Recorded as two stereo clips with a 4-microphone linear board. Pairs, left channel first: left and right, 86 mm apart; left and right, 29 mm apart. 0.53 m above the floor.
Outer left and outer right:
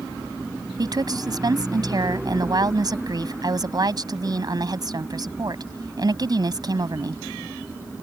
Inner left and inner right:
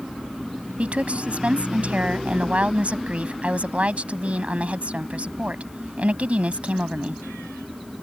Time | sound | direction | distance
0.8 | a woman speaking | 50° right (ahead or behind) | ?